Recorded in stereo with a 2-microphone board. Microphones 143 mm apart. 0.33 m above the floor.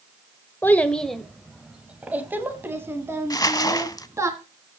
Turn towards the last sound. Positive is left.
turn(degrees=25)  # may be behind; listen again after turning